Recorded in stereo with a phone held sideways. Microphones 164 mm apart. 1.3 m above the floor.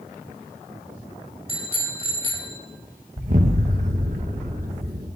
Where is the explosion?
55° right (ahead or behind), 1.7 m.